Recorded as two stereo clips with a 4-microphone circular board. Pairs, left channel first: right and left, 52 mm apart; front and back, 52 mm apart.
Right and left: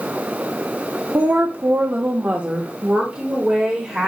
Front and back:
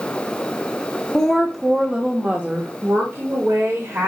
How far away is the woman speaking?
About 0.9 m.